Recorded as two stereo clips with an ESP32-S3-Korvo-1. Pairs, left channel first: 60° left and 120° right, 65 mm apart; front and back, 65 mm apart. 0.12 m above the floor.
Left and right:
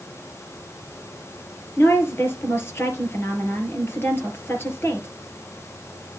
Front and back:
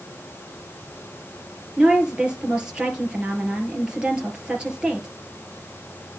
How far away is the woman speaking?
About 2.5 m.